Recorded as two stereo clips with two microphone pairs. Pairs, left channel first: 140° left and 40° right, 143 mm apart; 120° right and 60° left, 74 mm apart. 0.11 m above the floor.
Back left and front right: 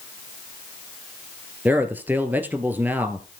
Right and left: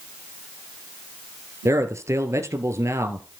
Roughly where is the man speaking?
Ahead left.